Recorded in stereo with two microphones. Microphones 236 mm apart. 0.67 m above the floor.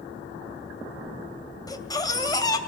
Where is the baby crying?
15° left (ahead or behind), 2.5 m.